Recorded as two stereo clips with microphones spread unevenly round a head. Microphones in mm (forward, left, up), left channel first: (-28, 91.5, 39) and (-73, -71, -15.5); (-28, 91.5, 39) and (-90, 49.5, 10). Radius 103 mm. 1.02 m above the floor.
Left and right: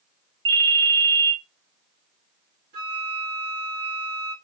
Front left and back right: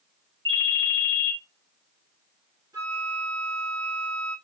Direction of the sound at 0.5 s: 115° right.